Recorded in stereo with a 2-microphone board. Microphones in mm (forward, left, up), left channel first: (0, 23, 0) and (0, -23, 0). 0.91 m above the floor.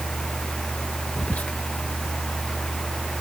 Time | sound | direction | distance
1.2 | whispering | 35° left (ahead or behind) | ?